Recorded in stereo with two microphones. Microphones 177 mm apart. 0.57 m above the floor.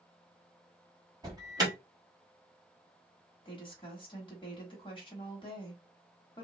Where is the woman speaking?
30° left (ahead or behind), 1.2 m.